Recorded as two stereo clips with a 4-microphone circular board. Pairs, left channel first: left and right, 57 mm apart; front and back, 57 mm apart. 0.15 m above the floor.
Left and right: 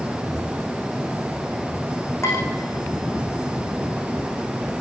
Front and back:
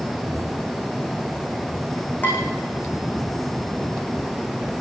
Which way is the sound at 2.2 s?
55° left.